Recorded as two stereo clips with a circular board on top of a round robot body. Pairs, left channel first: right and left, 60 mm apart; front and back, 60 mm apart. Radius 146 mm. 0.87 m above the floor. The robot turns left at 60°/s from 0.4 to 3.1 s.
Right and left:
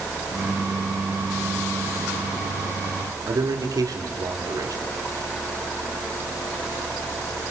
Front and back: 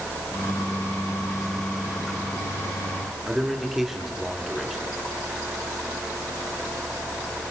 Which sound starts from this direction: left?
A man speaking, at 3.3 s.